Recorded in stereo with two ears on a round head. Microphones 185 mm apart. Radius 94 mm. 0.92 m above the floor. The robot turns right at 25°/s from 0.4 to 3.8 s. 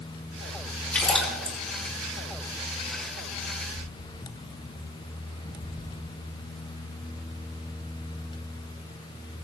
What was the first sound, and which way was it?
A splash, 5° left (ahead or behind).